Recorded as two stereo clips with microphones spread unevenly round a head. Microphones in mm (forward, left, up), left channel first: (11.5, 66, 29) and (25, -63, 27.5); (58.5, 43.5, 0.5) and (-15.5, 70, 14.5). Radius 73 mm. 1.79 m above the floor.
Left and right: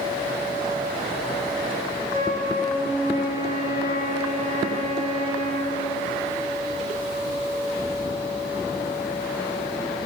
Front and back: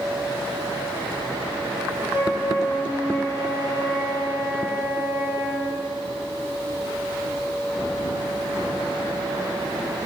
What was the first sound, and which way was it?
A flute, 120° right.